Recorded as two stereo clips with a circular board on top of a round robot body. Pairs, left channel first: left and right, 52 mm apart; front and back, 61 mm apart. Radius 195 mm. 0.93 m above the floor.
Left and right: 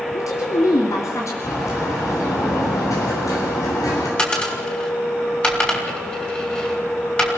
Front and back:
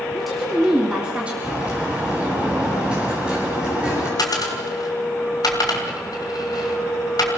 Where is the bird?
105° left, 8.5 m.